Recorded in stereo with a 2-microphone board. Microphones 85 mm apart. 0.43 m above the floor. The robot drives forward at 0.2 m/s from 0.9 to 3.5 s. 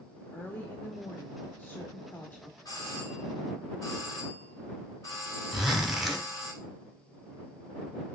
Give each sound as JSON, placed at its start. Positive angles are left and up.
{"t": 0.3, "sound": "a woman speaking", "side_deg": 25, "distance_m": 0.7}
{"t": 2.6, "sound": "a doorbell", "side_deg": 50, "distance_m": 3.0}
{"t": 5.5, "sound": "a zipper", "side_deg": -5, "distance_m": 0.9}